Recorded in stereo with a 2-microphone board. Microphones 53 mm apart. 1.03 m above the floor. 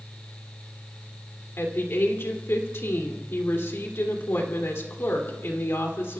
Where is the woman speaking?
55° left (ahead or behind), 2.5 m.